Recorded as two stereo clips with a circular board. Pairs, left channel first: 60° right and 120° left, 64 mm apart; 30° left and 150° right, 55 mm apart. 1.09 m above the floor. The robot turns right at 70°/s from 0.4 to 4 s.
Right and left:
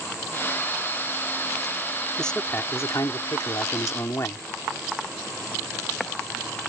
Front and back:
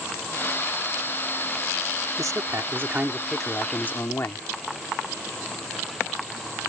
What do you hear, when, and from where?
2.2 s a man speaking: 145° right; by 4.5 s 15° right